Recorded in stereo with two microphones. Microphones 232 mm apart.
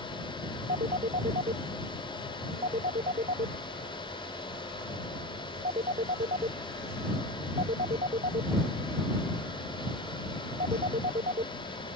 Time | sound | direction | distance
0.7 | a phone ringing | 35° right (ahead or behind) | ?